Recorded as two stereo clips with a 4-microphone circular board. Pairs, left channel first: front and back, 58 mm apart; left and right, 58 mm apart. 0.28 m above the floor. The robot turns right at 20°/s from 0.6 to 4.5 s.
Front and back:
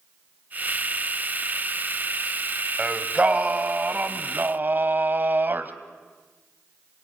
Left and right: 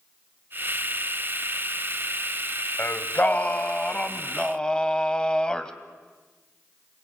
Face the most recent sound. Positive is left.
turn(degrees=160)